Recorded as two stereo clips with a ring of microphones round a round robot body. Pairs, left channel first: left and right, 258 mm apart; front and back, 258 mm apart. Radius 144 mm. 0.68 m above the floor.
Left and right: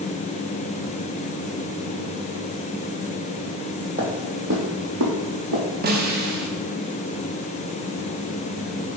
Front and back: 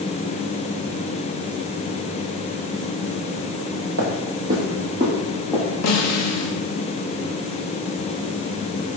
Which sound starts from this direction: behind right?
Footsteps, at 4.0 s.